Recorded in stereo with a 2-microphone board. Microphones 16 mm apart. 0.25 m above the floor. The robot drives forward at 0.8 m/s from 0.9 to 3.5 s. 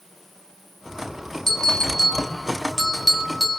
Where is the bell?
35° left (ahead or behind), 0.8 m; by 3.6 s 25° left (ahead or behind), 1.3 m.